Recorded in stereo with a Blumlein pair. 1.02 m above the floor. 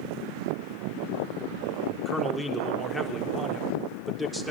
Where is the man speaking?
Straight ahead, 3.5 m.